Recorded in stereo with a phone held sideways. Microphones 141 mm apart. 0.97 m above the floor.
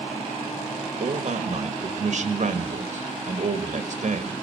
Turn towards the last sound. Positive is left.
turn(degrees=-60)  # may be behind; listen again after turning